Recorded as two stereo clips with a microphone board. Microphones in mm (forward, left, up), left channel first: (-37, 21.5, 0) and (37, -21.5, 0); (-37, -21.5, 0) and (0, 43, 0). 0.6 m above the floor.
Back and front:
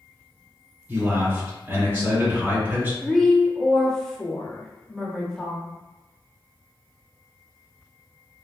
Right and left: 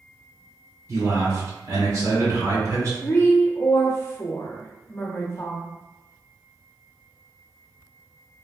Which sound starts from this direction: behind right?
A woman speaking, at 3.0 s.